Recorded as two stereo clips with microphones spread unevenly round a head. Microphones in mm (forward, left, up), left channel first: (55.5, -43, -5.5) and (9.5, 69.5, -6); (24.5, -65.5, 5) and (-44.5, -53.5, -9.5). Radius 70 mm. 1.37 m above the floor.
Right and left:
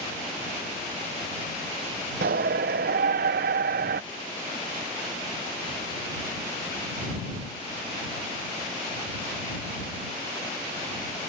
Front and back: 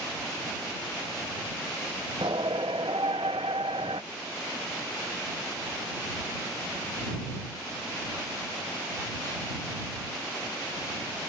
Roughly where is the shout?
Left.